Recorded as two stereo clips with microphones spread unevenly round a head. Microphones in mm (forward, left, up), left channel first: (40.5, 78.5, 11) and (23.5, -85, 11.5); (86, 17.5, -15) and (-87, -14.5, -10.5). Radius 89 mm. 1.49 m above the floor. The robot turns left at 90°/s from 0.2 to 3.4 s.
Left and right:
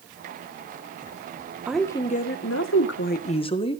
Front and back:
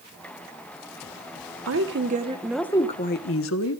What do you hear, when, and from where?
1.7 s a woman speaking: straight behind, 1.4 m; by 3.8 s 25° left, 1.4 m